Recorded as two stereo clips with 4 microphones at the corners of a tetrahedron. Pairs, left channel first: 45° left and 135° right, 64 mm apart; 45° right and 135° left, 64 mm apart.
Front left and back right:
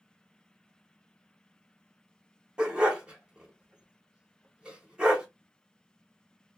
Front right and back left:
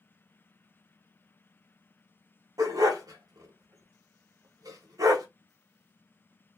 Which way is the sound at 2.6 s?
155° left.